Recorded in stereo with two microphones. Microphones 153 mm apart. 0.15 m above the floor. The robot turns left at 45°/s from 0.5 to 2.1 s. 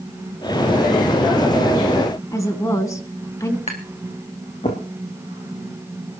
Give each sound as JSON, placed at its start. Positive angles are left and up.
{"t": 2.3, "sound": "a woman speaking", "side_deg": 20, "distance_m": 1.7}
{"t": 3.7, "sound": "tapping", "side_deg": 45, "distance_m": 2.5}